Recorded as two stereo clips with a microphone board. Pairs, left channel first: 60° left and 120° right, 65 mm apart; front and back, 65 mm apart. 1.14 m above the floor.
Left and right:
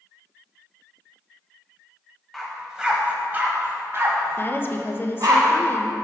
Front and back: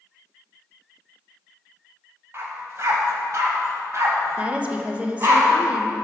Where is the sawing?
No sawing in this recording.